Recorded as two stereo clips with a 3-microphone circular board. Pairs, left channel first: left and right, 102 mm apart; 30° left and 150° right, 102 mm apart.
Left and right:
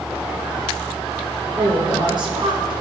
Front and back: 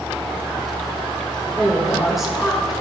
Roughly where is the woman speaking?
Ahead right.